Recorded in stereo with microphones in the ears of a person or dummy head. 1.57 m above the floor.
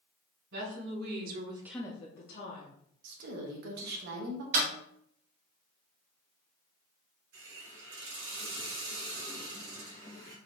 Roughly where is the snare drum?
Right.